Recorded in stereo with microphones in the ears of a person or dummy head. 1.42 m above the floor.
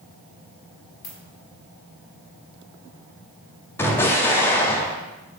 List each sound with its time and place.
1.0 s a ringtone: 45° left (ahead or behind), 1.8 m
3.8 s an explosion: 10° left (ahead or behind), 0.5 m